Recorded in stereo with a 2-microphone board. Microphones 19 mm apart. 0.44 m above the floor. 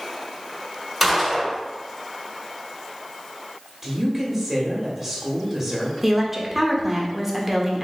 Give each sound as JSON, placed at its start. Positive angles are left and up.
{"t": 1.0, "sound": "a gunshot", "side_deg": -5, "distance_m": 1.3}
{"t": 3.8, "sound": "a woman speaking", "side_deg": -15, "distance_m": 1.3}
{"t": 6.0, "sound": "a woman speaking", "side_deg": -10, "distance_m": 0.7}